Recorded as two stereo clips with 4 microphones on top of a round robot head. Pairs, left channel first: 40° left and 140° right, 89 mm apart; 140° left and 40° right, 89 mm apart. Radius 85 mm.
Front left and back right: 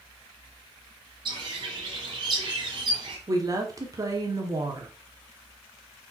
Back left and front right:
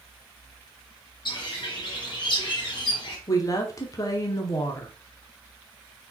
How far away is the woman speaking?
About 1.2 m.